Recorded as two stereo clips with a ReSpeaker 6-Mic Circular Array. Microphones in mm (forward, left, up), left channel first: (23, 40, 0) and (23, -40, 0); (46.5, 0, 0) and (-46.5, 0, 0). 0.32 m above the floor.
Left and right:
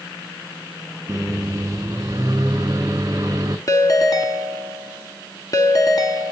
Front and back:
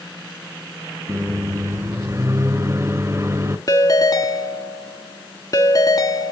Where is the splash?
No splash in this recording.